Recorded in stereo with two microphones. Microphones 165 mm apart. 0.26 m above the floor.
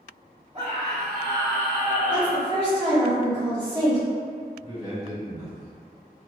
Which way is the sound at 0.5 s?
35° right (ahead or behind).